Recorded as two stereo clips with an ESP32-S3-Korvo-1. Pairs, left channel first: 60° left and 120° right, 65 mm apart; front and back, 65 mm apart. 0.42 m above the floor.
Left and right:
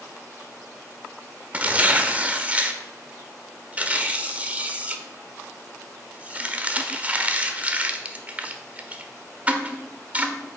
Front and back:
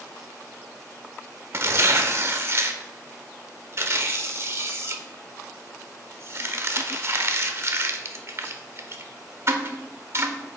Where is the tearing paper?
175° right, 0.7 m.